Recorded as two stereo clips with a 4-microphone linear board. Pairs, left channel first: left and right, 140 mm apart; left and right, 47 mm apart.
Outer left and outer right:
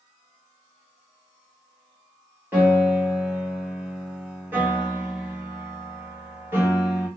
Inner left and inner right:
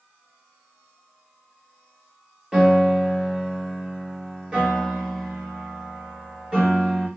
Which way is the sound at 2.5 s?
15° right (ahead or behind).